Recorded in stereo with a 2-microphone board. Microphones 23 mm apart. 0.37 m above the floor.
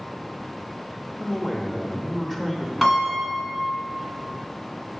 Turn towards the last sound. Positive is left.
turn(degrees=15)  # may be behind; listen again after turning